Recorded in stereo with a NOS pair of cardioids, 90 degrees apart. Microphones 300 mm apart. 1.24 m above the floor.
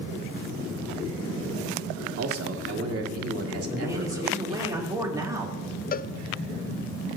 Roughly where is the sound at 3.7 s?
Ahead.